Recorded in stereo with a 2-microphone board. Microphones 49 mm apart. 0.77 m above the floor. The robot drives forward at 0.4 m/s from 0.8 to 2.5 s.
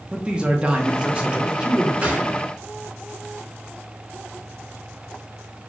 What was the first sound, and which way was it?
A man speaking, 20° right (ahead or behind).